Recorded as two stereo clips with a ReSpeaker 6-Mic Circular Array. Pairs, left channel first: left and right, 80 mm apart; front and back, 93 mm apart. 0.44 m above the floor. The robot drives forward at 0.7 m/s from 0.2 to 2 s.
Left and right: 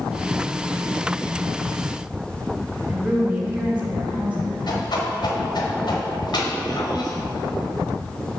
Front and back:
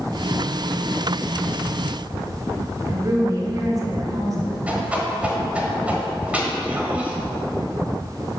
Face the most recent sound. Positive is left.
turn(degrees=105)